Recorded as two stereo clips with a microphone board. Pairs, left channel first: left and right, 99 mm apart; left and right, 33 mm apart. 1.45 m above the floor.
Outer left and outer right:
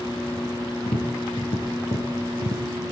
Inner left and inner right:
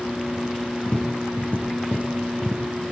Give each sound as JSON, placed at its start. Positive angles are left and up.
{"t": 0.9, "sound": "tapping", "side_deg": 70, "distance_m": 9.5}